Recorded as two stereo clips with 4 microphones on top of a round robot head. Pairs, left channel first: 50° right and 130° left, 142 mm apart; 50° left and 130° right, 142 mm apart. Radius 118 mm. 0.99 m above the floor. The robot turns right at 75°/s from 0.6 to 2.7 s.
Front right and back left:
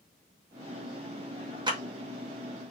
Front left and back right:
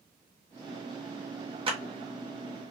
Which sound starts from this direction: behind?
A clap, at 1.7 s.